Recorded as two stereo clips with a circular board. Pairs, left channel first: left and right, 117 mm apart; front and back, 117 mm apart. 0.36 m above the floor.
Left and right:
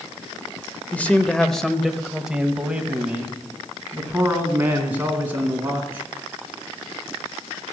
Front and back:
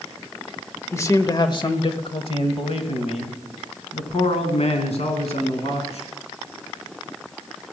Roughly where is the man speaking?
Ahead left.